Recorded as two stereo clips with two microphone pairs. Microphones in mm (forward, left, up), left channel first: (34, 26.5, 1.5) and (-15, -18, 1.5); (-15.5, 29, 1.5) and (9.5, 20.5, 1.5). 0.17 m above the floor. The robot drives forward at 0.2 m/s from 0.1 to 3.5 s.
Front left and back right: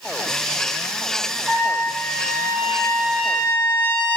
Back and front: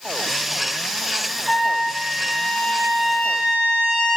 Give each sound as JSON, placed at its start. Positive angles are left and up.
{"t": 1.5, "sound": "a trumpet", "azimuth_deg": -145, "distance_m": 0.6}